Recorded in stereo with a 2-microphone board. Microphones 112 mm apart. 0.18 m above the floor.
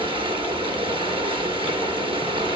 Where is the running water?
50° right (ahead or behind), 1.8 m.